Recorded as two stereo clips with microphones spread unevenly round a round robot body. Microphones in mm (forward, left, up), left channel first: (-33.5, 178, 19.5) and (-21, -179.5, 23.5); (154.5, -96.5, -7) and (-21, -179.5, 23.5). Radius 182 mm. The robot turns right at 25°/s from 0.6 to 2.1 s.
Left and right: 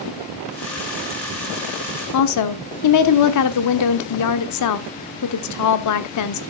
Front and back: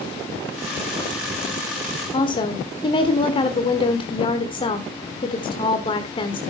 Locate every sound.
2.1 s a woman speaking: 80° left, 1.1 m